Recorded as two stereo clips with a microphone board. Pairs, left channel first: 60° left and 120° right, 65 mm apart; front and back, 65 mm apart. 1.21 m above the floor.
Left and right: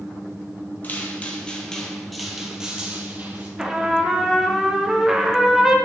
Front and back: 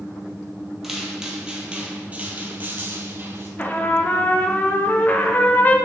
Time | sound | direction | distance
0.8 | footsteps | 100° left | 1.4 m
3.6 | a trumpet | 40° right | 0.7 m